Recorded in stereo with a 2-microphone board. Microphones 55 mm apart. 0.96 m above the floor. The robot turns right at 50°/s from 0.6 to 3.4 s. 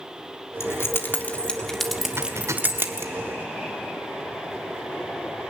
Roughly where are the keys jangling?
Left.